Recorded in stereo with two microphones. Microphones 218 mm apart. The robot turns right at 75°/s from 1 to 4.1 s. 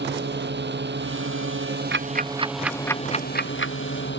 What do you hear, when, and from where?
0.0 s a drone: 120° right; by 4.2 s 115° left
1.9 s ticking: 65° right (ahead or behind); by 3.8 s 75° left (ahead or behind)